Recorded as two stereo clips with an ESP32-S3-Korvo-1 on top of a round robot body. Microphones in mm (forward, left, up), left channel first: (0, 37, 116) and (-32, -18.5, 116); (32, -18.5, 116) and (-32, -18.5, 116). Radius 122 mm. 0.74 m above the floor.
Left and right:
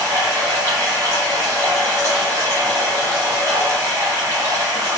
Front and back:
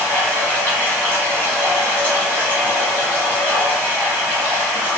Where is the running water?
65° right, 1.3 m.